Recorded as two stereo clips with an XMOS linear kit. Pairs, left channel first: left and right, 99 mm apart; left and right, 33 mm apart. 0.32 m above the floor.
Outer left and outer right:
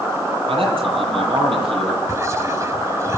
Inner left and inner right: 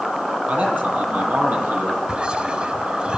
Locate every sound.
0.5 s a man speaking: 65° right (ahead or behind), 9.5 m
2.1 s whispering: 30° right (ahead or behind), 1.1 m